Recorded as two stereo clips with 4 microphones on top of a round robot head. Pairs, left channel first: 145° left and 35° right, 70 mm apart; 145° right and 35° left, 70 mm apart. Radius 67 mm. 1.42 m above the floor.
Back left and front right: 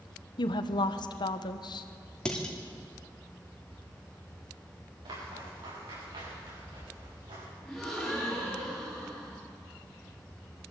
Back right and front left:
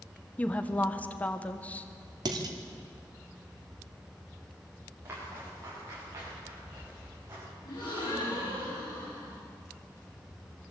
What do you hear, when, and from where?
0.4 s a woman speaking: 145° left, 1.4 m
2.2 s dishes clattering: 65° left, 2.5 m
5.0 s footsteps: 20° right, 9.5 m; by 7.5 s 25° right, 7.5 m
7.7 s a gasp: 125° right, 10 m